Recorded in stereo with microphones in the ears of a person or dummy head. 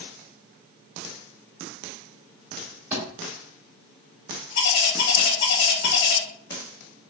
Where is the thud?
15° right (ahead or behind), 2.0 m.